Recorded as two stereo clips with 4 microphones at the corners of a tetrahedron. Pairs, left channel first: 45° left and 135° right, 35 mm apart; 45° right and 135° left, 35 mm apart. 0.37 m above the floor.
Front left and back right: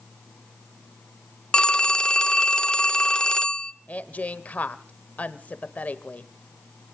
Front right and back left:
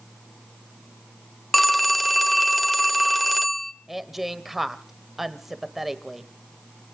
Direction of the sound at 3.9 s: 50° left.